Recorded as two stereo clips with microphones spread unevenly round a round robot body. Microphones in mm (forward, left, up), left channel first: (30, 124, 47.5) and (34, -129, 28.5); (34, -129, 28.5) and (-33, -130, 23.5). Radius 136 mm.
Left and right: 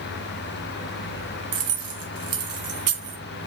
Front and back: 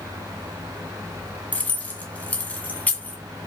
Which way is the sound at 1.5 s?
70° right.